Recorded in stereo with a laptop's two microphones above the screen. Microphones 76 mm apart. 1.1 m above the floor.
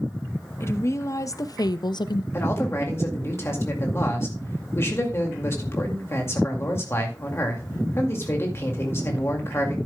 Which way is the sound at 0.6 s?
35° left (ahead or behind).